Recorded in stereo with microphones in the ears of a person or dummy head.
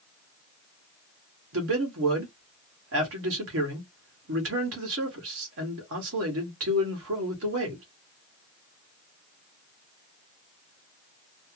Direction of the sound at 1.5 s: 80° right.